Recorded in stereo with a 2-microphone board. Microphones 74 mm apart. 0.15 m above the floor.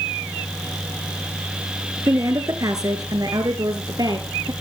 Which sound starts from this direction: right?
A woman speaking, at 2.1 s.